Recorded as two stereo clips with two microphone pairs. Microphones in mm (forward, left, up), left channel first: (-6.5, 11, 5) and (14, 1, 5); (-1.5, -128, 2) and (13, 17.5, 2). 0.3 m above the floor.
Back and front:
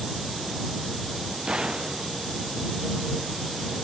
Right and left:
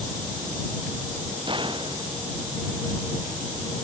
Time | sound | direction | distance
1.5 | a gunshot | 30° left | ?